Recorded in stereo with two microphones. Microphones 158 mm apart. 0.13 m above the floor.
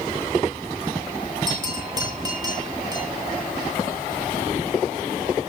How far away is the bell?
About 6.5 m.